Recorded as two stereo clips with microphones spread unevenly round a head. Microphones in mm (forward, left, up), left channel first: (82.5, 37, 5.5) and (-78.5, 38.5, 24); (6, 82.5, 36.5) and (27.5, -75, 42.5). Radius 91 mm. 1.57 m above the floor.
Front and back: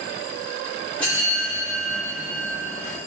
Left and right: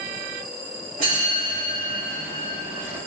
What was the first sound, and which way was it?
A bell, 90° right.